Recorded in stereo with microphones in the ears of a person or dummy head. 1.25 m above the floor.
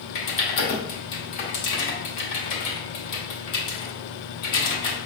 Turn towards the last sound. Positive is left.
turn(degrees=50)  # may be behind; listen again after turning